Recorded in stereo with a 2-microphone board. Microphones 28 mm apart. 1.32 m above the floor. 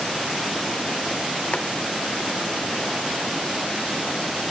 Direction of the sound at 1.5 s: 50° left (ahead or behind).